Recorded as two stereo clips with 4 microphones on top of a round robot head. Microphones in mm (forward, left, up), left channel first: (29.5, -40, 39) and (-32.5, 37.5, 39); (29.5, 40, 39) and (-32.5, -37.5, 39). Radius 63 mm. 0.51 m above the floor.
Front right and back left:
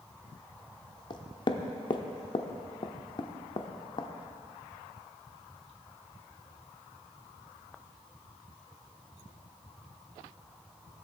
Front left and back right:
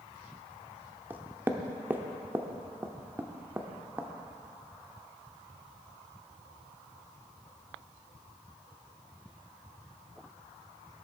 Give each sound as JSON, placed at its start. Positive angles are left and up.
{"t": 1.1, "sound": "knocking", "azimuth_deg": -65, "distance_m": 0.9}